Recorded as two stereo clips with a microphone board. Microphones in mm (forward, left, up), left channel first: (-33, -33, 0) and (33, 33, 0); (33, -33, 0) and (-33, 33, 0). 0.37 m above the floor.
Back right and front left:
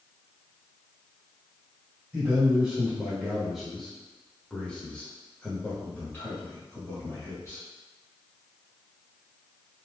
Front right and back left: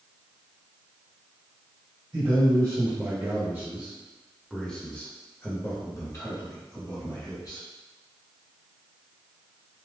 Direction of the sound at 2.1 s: 110° left.